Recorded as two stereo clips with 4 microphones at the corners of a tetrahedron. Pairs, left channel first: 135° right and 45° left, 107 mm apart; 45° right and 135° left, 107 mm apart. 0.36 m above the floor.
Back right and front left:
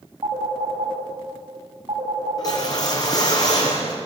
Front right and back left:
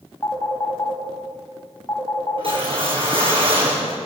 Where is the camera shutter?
No camera shutter in this recording.